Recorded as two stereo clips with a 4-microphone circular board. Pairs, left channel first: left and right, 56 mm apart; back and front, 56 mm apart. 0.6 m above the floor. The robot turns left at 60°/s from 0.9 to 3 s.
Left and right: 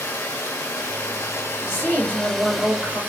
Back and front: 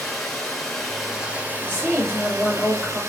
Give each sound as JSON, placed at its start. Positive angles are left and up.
{"t": 0.0, "sound": "running water", "azimuth_deg": 95, "distance_m": 0.9}
{"t": 1.6, "sound": "a woman speaking", "azimuth_deg": -5, "distance_m": 1.8}